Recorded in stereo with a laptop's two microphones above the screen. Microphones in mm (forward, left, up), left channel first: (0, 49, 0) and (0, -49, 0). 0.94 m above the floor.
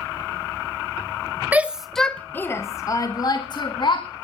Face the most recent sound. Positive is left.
turn(degrees=55)  # may be behind; listen again after turning